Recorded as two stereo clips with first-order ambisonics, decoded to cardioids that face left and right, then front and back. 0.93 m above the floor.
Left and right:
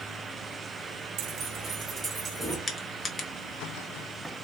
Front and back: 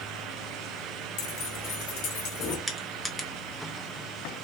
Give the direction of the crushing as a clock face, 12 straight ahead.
9 o'clock.